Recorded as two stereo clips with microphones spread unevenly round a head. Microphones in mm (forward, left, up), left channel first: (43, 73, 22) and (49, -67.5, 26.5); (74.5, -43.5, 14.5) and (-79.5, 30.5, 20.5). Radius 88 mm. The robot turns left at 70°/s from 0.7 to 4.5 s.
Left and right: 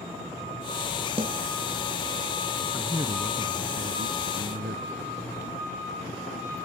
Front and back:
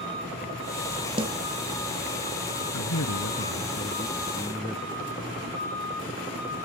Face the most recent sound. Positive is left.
turn(degrees=-130)